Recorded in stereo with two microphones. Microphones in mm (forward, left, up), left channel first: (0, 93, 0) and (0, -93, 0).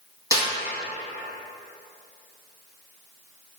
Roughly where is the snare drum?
Centre.